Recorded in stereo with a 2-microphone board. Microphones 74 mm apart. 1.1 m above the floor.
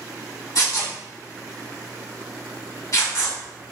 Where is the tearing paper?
45° left (ahead or behind), 1.9 m.